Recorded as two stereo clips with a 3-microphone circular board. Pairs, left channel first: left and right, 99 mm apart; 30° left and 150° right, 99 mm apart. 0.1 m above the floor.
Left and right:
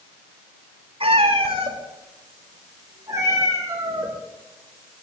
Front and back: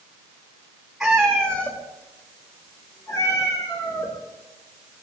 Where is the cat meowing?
65° right, 3.5 m; by 4.1 s 25° right, 6 m.